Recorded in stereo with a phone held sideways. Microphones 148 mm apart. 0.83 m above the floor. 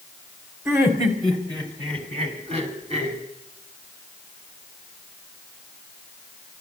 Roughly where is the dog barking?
No dog barking in this recording.